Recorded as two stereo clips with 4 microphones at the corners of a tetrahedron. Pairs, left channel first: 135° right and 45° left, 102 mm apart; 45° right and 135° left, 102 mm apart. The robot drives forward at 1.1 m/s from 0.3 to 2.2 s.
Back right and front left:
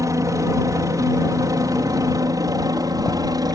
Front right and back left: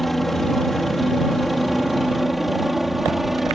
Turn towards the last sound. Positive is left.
turn(degrees=45)